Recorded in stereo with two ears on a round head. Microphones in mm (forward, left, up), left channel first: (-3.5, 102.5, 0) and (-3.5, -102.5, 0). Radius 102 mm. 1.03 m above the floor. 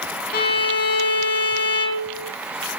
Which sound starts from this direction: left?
A violin, at 0.3 s.